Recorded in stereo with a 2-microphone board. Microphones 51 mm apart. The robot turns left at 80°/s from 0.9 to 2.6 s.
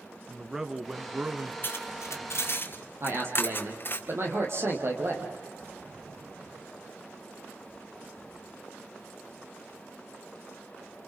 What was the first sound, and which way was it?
A man speaking, 15° right.